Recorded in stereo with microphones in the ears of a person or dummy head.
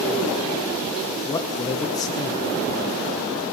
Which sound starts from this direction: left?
A man speaking, at 1.2 s.